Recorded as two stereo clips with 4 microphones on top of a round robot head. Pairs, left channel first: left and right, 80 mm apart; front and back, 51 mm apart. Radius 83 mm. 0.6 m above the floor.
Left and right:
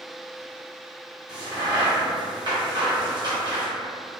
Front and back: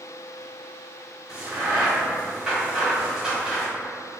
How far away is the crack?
About 1.2 m.